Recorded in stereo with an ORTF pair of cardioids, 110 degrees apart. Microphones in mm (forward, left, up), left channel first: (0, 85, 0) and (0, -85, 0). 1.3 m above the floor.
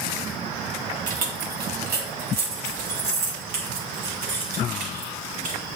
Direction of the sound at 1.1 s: 55° right.